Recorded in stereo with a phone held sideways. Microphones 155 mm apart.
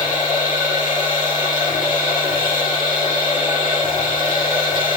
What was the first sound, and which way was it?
A machine running, 65° left (ahead or behind).